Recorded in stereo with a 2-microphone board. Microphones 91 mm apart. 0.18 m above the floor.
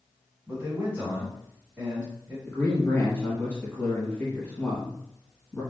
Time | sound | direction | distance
0.5 | a man speaking | 25° right (ahead or behind) | 1.7 m
2.5 | a man speaking | 20° left (ahead or behind) | 1.4 m